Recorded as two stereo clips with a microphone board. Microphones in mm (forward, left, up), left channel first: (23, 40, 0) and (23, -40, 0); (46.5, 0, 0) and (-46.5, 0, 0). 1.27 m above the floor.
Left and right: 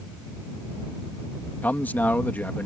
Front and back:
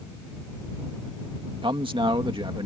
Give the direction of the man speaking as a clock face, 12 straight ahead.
7 o'clock.